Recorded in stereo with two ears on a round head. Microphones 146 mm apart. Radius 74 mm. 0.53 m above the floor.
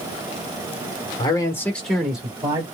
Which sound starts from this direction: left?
A man speaking, at 1.2 s.